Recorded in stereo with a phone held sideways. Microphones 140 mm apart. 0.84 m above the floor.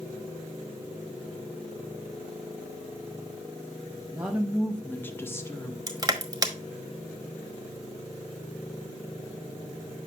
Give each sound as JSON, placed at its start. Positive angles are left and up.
{"t": 4.1, "sound": "a woman speaking", "side_deg": -10, "distance_m": 1.0}
{"t": 5.9, "sound": "crushing", "side_deg": -25, "distance_m": 1.1}